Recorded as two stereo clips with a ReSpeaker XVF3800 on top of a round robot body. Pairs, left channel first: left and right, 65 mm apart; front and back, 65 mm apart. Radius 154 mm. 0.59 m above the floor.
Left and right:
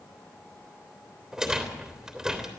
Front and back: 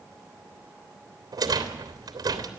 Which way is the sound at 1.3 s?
175° right.